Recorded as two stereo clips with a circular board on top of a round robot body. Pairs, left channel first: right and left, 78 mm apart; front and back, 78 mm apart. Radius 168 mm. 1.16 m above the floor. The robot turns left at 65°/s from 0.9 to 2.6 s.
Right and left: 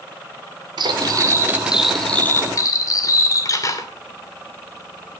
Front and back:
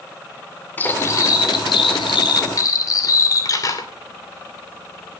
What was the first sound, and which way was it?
Cutlery clinking, 65° left.